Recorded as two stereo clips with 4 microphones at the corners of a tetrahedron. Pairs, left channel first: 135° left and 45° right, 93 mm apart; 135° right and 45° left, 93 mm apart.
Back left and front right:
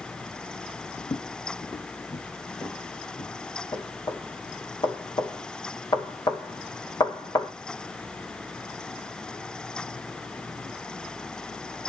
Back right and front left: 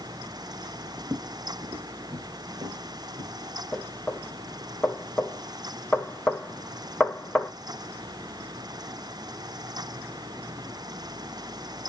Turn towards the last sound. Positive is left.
turn(degrees=150)